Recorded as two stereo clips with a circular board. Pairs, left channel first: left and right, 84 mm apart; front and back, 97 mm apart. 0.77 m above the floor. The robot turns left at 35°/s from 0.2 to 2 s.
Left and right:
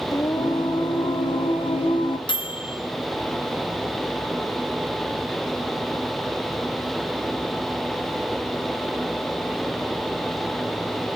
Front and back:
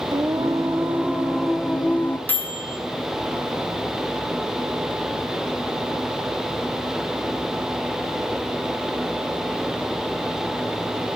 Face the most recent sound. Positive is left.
turn(degrees=70)